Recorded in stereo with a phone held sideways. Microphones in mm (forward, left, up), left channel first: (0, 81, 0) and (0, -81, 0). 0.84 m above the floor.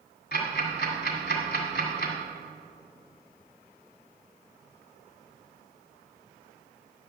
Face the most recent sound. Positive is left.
turn(degrees=75)  # may be behind; listen again after turning